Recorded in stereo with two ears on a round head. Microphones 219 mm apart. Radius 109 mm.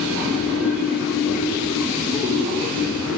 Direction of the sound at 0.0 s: 5° right (ahead or behind).